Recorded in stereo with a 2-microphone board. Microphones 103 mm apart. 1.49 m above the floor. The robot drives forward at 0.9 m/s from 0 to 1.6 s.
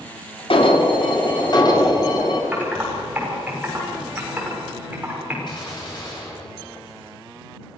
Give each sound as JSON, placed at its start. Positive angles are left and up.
{"t": 0.5, "sound": "an alarm", "side_deg": 60, "distance_m": 2.0}
{"t": 2.5, "sound": "typing on a keyboard", "side_deg": -15, "distance_m": 5.5}
{"t": 5.5, "sound": "a gunshot", "side_deg": 45, "distance_m": 8.0}